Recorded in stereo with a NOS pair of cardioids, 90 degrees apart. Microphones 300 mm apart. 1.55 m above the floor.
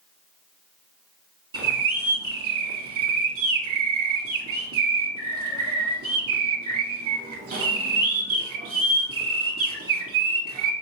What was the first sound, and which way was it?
A bird, 45° right.